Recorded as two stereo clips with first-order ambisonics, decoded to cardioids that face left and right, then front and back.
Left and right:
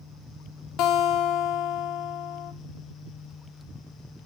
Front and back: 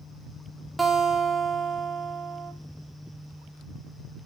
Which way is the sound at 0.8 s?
105° left.